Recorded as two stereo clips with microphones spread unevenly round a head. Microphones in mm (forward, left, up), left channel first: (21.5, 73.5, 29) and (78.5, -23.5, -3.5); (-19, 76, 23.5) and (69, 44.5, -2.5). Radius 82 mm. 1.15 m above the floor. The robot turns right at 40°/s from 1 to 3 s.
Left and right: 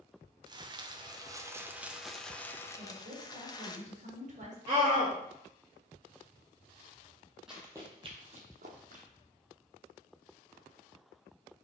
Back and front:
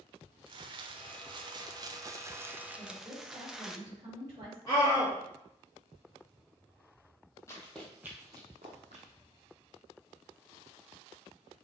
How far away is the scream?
About 3.5 m.